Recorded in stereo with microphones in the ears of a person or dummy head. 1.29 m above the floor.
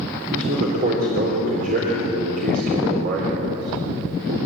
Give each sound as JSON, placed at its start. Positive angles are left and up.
{"t": 0.3, "sound": "a man speaking", "side_deg": -50, "distance_m": 3.5}